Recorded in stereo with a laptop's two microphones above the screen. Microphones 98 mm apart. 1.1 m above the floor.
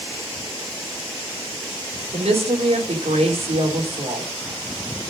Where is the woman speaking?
85° right, 3 m.